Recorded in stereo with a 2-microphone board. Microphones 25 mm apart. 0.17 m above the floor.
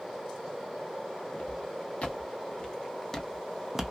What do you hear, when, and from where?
1.3 s footsteps: 65° left (ahead or behind), 1.3 m; by 3.9 s 15° right (ahead or behind), 0.5 m